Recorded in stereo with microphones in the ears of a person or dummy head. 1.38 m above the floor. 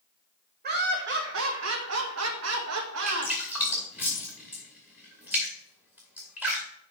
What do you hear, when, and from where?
0.6 s laughter: 50° right (ahead or behind), 1.4 m; by 3.3 s 75° right (ahead or behind), 2.5 m
3.1 s dripping: 5° right (ahead or behind), 2.5 m